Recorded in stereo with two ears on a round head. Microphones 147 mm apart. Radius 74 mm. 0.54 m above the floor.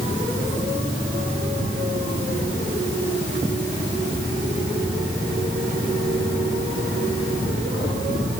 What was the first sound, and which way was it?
Only background noise.